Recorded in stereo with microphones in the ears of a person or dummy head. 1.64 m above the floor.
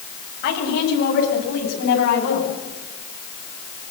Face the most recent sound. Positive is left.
turn(degrees=60)  # may be behind; listen again after turning